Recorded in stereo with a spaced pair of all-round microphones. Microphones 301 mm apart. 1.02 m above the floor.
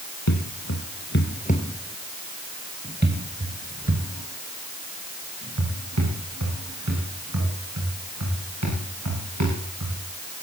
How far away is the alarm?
I don't hear an alarm.